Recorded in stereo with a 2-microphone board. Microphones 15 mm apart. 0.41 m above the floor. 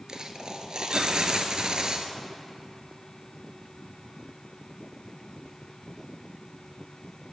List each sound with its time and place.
0.1 s a dropped coin: 60° right (ahead or behind), 0.8 m